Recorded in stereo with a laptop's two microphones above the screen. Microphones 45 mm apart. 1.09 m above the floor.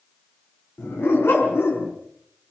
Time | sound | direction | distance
0.8 | a dog barking | 75° left (ahead or behind) | 6 m